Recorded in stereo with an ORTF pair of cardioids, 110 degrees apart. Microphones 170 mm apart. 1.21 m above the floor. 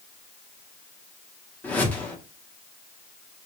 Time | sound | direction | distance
1.6 | a whoosh | 10° left | 1.0 m